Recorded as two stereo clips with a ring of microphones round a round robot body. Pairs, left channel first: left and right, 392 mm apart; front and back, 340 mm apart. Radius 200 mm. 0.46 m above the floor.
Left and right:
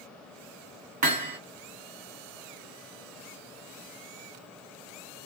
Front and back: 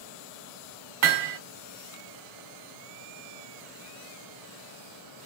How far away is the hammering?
About 1.0 m.